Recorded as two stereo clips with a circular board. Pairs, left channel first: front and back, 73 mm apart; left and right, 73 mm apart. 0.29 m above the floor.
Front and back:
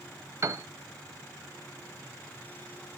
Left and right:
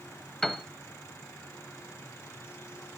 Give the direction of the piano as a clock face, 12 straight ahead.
6 o'clock.